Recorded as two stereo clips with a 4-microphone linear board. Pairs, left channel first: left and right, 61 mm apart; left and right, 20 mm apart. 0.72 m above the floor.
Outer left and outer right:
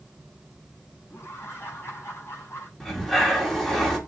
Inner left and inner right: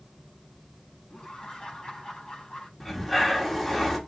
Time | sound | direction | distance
1.1 | laughter | 35° left (ahead or behind) | 5.5 m
2.8 | breathing | 5° left (ahead or behind) | 2.5 m